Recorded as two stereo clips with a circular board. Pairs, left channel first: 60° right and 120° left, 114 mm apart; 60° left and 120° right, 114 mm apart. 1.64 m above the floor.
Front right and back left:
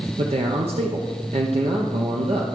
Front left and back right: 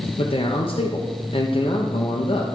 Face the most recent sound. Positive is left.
turn(degrees=95)